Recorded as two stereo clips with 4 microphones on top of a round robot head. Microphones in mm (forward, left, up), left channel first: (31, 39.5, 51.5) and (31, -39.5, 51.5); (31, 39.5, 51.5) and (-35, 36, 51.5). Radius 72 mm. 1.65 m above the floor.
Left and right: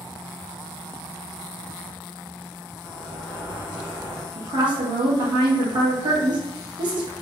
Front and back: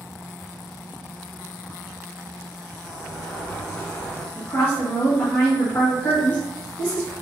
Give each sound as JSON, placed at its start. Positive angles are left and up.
{"t": 2.8, "sound": "a sliding door", "azimuth_deg": -60, "distance_m": 2.0}
{"t": 4.3, "sound": "a woman speaking", "azimuth_deg": -65, "distance_m": 1.1}